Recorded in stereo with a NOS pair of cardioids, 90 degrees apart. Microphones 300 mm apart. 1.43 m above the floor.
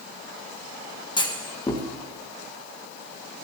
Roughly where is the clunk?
Ahead.